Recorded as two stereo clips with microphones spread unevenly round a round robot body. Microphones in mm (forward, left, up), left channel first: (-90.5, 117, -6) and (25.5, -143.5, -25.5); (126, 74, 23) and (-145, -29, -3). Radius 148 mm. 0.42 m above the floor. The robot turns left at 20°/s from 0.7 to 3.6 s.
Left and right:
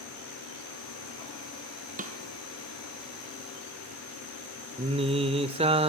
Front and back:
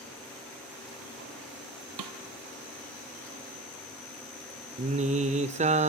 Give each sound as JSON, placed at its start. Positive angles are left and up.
{"t": 2.0, "sound": "a snare drum", "azimuth_deg": -130, "distance_m": 2.0}
{"t": 4.8, "sound": "singing", "azimuth_deg": -115, "distance_m": 0.8}